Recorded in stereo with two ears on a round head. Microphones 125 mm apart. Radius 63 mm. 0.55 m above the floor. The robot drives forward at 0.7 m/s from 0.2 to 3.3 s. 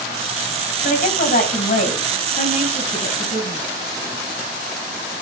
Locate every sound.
0.8 s a woman speaking: 65° left (ahead or behind), 3.5 m; by 3.6 s 45° left (ahead or behind), 4.5 m